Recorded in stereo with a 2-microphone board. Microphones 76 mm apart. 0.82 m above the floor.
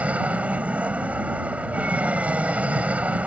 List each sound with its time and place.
0.0 s an aircraft: 20° right (ahead or behind)